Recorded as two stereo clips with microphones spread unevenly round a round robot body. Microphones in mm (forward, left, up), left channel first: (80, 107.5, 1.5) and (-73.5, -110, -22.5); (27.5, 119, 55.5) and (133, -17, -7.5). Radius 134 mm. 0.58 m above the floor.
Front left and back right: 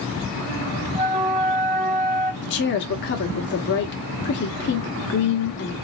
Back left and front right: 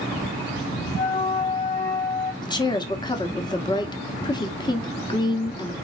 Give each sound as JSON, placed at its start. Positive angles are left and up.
{"t": 0.9, "sound": "a flute", "azimuth_deg": 175, "distance_m": 0.6}
{"t": 2.4, "sound": "a woman speaking", "azimuth_deg": 50, "distance_m": 1.0}